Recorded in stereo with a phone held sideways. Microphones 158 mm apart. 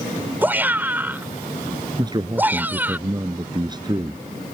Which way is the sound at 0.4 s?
10° right (ahead or behind).